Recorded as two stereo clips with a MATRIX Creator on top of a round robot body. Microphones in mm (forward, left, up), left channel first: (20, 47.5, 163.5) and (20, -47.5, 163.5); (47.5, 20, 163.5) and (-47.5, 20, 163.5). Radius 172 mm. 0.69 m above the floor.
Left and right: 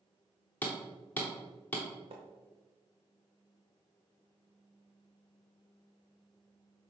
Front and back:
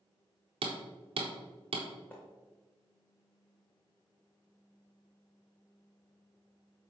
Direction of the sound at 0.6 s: 165° left.